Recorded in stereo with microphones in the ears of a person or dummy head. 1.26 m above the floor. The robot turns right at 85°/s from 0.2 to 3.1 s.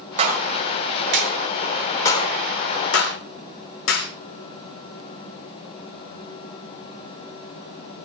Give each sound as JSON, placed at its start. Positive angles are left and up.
{"t": 0.2, "sound": "a clap", "side_deg": -35, "distance_m": 4.5}